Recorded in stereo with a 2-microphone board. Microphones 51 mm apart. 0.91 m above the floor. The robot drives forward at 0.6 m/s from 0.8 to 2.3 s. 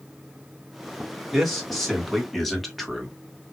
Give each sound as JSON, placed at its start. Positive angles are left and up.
{"t": 1.3, "sound": "a man speaking", "side_deg": 0, "distance_m": 2.0}